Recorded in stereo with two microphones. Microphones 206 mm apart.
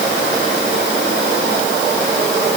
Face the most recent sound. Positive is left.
No sound to turn to.